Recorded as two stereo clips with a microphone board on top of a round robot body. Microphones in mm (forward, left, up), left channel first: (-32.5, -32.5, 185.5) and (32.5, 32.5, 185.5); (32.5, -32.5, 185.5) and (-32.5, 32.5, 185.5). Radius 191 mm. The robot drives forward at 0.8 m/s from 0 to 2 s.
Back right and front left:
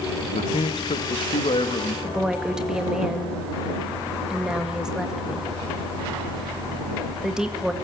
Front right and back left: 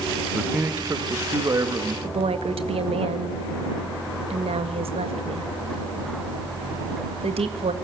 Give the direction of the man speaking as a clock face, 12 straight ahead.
5 o'clock.